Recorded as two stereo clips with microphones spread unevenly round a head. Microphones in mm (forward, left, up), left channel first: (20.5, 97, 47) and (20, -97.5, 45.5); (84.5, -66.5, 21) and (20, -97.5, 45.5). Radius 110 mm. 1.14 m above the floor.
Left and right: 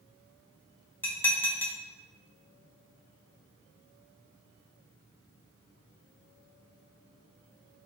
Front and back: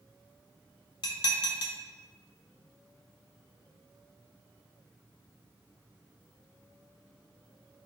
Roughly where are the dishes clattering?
Ahead.